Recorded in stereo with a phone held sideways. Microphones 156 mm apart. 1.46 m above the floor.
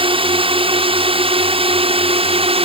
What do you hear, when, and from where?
0.0 s a drone: 35° right (ahead or behind); by 2.6 s 40° right (ahead or behind)